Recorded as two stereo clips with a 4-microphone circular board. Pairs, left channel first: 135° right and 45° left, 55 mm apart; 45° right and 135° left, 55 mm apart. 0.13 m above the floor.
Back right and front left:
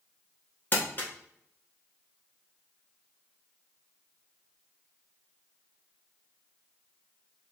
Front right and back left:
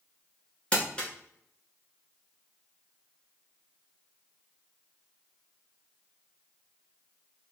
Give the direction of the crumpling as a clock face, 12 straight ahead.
4 o'clock.